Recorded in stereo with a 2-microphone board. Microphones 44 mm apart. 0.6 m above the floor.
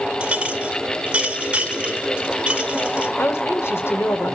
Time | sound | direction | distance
0.2 | a clink | 25° right (ahead or behind) | 1.3 m
3.2 | a woman speaking | 65° left (ahead or behind) | 1.9 m